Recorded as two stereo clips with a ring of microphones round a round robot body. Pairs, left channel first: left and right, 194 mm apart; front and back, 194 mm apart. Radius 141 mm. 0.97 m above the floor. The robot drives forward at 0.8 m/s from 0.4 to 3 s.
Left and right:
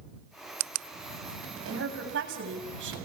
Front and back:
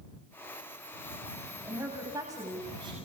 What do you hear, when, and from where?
1.6 s a woman speaking: 100° right, 7 m; by 3.0 s 105° right, 7 m